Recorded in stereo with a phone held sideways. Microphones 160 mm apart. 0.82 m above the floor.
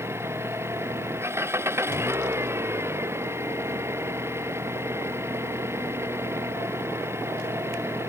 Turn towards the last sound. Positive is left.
turn(degrees=-15)  # may be behind; listen again after turning